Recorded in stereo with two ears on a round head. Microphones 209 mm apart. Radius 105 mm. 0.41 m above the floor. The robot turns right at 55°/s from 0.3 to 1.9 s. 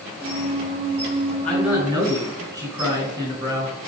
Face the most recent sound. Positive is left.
turn(degrees=-15)  # may be behind; listen again after turning